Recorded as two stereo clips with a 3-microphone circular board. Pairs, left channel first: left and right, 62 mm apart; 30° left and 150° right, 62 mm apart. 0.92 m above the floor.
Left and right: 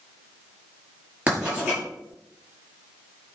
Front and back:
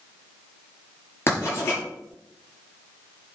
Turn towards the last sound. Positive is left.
turn(degrees=-20)